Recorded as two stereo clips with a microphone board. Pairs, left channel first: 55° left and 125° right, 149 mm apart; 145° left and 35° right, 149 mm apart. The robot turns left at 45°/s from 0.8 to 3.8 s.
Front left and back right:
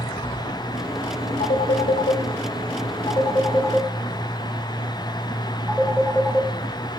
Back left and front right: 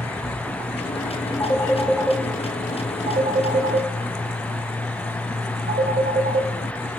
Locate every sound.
1.4 s a phone ringing: 80° left, 1.2 m; by 6.5 s 30° right, 1.2 m